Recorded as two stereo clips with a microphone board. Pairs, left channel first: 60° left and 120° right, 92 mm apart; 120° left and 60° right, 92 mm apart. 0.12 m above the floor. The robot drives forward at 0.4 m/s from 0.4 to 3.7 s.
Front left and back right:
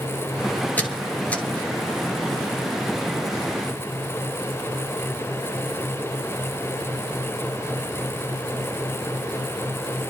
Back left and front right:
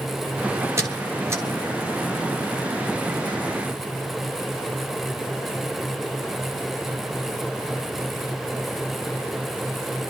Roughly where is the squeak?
Ahead.